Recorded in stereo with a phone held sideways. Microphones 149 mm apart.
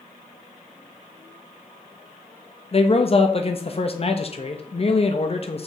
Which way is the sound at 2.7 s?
40° left (ahead or behind).